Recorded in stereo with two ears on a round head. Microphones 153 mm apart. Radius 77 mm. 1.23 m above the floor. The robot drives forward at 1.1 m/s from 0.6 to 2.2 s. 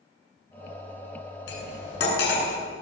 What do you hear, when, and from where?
1.5 s cutlery clinking: 75° left (ahead or behind), 9.5 m